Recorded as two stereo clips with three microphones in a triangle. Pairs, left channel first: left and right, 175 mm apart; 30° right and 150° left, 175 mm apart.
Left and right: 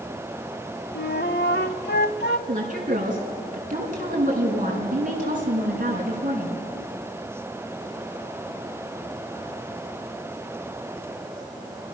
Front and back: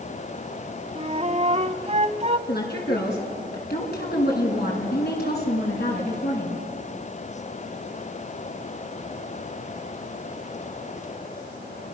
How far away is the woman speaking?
About 5.5 m.